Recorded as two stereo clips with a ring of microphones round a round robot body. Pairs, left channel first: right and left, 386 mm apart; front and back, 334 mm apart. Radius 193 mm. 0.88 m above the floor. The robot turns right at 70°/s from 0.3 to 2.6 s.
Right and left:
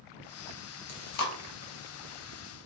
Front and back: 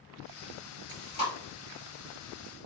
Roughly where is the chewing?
Behind right.